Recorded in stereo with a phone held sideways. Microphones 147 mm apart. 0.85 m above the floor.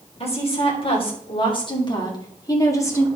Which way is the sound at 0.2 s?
45° left (ahead or behind).